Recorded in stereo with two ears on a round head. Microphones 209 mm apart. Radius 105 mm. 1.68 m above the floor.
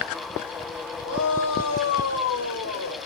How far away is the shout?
About 6.5 m.